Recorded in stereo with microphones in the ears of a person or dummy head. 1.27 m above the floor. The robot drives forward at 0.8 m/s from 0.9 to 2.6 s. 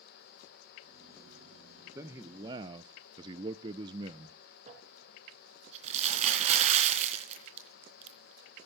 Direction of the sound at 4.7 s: 30° right (ahead or behind).